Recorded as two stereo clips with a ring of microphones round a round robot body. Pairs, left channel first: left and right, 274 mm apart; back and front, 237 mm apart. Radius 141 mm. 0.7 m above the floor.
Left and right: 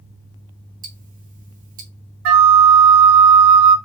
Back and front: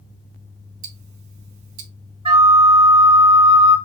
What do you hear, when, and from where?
0.8 s ticking: 30° right, 0.7 m
2.2 s a flute: 70° right, 0.6 m